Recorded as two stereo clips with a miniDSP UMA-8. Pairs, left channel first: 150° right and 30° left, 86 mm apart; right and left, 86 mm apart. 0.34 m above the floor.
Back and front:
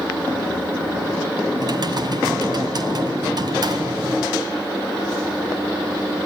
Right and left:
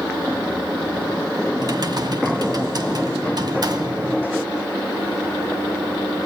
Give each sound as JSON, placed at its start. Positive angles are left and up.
{"t": 1.6, "sound": "typing on a keyboard", "azimuth_deg": 60, "distance_m": 2.5}